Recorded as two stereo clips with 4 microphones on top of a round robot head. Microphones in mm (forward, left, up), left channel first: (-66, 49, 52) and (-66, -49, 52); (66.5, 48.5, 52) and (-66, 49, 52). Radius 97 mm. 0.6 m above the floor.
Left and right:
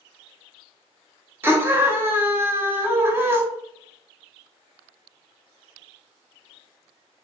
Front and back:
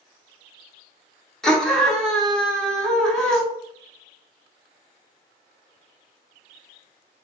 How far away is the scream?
About 0.6 m.